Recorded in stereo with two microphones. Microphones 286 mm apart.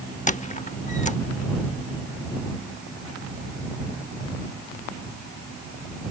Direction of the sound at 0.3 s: 25° left (ahead or behind).